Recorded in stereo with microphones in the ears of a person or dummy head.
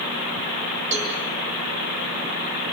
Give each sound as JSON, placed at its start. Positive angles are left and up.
{"t": 0.9, "sound": "a cowbell", "side_deg": -35, "distance_m": 10.0}